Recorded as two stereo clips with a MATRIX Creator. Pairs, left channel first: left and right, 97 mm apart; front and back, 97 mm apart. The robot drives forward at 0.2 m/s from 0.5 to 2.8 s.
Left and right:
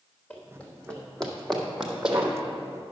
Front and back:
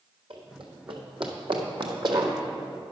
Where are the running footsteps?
160° left, 2 m; by 2.3 s 165° right, 1.5 m.